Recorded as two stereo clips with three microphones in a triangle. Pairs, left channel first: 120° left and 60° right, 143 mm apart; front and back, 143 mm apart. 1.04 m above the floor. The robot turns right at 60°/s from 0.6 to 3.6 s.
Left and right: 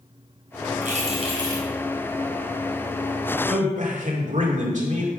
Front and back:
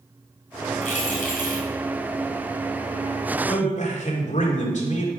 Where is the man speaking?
40° right, 2.5 m; by 5.1 s 30° right, 2.5 m.